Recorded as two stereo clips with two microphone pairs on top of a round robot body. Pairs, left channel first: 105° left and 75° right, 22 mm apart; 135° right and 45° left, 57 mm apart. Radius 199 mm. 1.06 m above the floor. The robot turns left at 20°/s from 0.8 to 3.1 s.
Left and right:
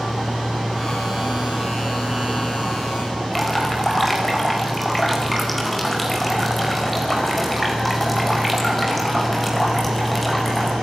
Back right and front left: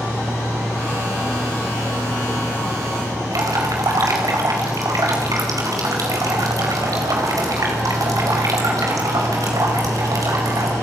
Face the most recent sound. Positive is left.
turn(degrees=20)